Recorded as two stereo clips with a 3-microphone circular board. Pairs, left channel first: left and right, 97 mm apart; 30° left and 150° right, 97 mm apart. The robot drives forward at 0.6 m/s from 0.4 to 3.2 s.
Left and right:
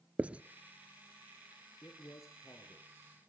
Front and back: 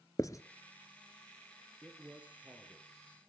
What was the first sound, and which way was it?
Writing, 20° right.